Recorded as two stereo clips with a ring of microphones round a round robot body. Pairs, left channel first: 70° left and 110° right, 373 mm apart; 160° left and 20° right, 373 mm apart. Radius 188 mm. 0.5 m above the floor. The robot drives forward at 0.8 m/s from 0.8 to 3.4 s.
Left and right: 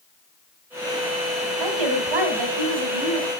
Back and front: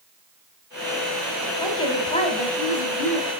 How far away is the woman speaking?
About 4 m.